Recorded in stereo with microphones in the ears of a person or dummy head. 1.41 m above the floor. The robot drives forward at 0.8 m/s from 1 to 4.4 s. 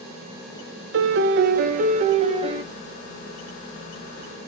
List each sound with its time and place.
0.9 s a piano: 65° right (ahead or behind), 0.8 m; by 2.6 s 30° right (ahead or behind), 1.5 m